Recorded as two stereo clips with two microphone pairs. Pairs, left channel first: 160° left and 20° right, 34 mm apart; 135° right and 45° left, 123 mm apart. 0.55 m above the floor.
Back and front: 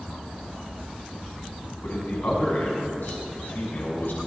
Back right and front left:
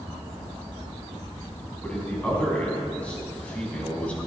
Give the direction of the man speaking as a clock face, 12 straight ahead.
7 o'clock.